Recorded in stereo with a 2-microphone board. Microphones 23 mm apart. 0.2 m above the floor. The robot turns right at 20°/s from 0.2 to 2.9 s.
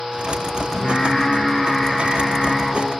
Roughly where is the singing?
Behind left.